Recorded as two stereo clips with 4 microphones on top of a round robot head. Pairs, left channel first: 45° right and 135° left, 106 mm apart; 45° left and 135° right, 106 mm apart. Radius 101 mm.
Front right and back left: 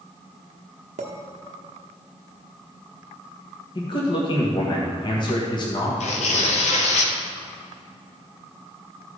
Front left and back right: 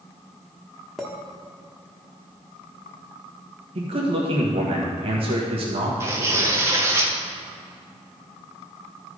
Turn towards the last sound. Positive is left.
turn(degrees=-65)